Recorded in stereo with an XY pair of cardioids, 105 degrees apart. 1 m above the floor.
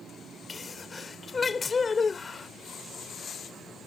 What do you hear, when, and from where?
0.5 s a sneeze: 30° left